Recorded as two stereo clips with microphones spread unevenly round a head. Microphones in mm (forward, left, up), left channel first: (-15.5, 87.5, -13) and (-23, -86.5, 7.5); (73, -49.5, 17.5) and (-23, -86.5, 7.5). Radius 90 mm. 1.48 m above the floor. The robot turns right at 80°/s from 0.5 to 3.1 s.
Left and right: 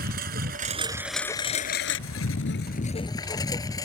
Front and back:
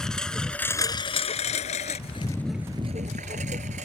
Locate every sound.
0.0 s a lawn mower: 60° right; by 3.9 s 160° left